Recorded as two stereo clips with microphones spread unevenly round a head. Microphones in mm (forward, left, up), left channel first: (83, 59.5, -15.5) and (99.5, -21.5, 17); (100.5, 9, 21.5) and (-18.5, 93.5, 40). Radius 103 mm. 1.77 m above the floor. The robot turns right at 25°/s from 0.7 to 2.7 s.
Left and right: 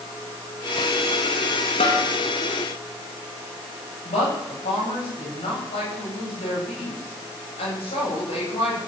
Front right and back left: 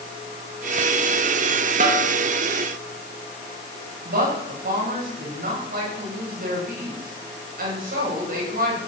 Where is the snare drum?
115° left, 3.5 m; by 2.1 s 120° left, 3.5 m.